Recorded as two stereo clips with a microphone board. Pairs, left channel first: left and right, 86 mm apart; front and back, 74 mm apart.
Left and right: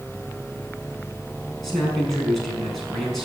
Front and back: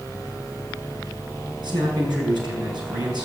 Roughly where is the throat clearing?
No throat clearing in this recording.